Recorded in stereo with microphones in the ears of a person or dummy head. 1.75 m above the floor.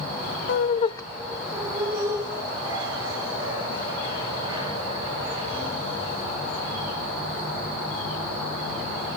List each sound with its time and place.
0.5 s laughter: 65° left (ahead or behind), 0.5 m; by 6.8 s 30° right (ahead or behind), 6 m